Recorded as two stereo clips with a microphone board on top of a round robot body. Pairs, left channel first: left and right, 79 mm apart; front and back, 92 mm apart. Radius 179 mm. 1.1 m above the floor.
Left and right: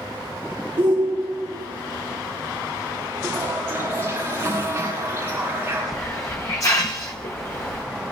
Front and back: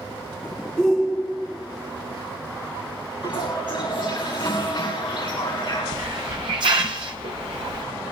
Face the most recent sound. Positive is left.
turn(degrees=145)